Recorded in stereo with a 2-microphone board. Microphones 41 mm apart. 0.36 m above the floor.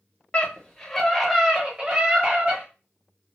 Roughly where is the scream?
Left.